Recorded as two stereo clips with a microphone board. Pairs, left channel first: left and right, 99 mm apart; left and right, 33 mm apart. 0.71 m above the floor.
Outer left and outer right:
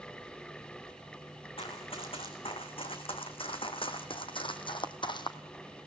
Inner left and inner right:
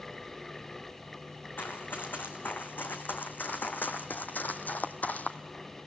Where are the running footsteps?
75° left (ahead or behind), 3.5 m; by 5.4 s 50° left (ahead or behind), 1.5 m.